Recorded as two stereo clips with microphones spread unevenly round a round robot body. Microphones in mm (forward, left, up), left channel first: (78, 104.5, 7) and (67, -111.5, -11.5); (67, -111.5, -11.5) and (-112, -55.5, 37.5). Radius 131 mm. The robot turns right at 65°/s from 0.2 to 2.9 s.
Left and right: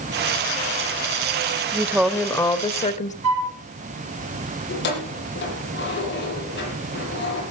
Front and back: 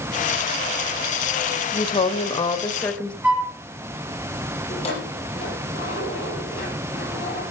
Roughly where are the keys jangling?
Ahead left.